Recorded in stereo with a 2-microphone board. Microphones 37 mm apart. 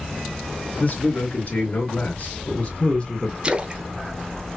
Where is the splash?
25° right (ahead or behind), 0.6 m.